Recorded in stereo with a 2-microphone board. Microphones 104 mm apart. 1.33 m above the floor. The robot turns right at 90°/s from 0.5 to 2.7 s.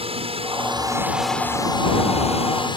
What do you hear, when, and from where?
0.0 s a drone: 65° right (ahead or behind); by 2.8 s 45° left (ahead or behind)